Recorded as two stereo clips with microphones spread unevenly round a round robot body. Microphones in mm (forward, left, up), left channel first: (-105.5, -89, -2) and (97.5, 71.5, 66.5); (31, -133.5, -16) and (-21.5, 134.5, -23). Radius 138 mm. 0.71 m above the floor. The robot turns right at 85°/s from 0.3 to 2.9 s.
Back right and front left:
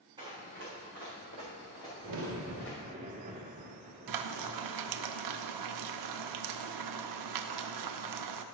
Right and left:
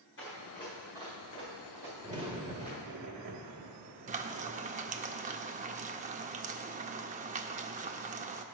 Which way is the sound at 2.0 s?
30° left.